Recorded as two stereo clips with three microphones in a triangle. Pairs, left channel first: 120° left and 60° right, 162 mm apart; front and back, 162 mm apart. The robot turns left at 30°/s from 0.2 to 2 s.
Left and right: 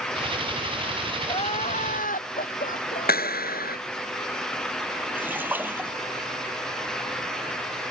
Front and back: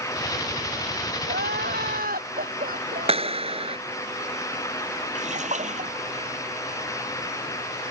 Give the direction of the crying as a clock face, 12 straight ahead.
6 o'clock.